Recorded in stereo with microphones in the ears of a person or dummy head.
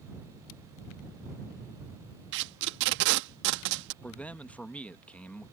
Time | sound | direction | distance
2.3 | tape being pulled | 65° right (ahead or behind) | ?
4.0 | a man speaking | centre (ahead or behind) | ?